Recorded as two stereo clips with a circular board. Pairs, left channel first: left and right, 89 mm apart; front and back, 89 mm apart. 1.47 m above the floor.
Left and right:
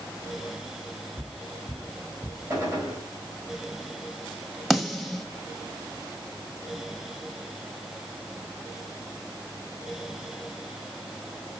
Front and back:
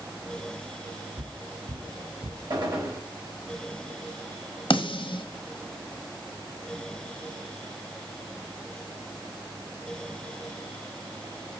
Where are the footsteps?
160° left, 2.5 m; by 2.4 s 150° left, 3 m.